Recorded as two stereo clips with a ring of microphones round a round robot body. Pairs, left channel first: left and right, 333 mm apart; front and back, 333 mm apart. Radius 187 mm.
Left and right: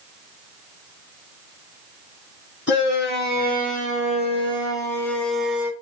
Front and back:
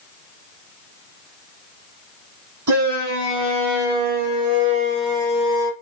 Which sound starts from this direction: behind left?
A shout, at 2.7 s.